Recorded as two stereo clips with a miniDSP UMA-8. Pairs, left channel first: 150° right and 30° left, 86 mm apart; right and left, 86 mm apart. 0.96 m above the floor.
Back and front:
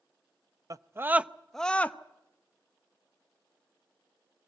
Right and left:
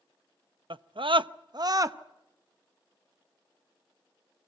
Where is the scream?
75° left, 0.7 m; by 2.0 s 140° left, 0.8 m.